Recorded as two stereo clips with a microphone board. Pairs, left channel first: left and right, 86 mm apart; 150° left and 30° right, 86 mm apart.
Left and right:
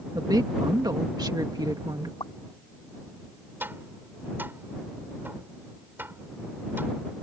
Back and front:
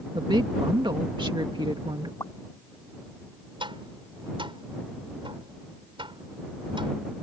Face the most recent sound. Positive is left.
turn(degrees=-25)